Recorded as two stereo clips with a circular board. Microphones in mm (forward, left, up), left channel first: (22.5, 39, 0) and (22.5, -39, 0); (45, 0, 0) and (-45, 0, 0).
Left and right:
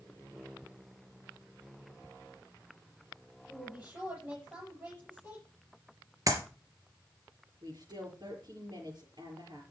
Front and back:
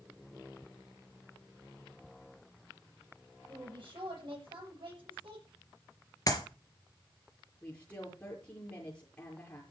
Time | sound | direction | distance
3.5 | a woman speaking | 160° right | 7.5 m
6.3 | a clap | 50° right | 3.5 m
7.6 | a woman speaking | 70° right | 5.5 m